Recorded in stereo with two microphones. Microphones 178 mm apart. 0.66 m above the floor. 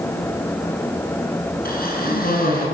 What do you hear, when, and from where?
1.6 s a cough: 55° left (ahead or behind), 8.5 m